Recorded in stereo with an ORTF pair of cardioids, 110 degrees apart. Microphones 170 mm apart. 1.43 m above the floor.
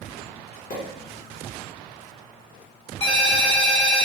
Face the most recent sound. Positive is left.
turn(degrees=40)